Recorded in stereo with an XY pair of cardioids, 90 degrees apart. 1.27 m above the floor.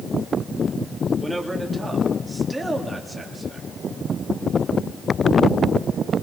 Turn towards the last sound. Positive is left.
turn(degrees=-10)